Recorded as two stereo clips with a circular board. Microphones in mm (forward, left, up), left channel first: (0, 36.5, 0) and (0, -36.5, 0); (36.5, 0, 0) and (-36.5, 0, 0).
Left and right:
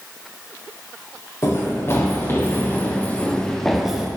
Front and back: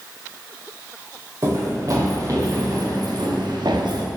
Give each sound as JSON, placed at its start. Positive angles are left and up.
{"t": 1.4, "sound": "running footsteps", "azimuth_deg": 140, "distance_m": 4.5}